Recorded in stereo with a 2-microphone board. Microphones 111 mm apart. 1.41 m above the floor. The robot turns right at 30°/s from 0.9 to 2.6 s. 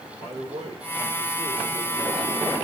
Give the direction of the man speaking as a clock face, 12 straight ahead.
3 o'clock.